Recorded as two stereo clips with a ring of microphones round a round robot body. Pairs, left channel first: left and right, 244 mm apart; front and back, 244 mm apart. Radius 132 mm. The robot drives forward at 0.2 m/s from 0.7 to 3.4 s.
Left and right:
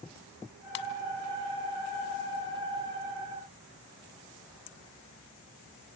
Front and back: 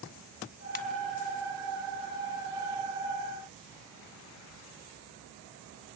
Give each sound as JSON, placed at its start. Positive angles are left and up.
{"t": 0.8, "sound": "a ringtone", "azimuth_deg": 60, "distance_m": 1.7}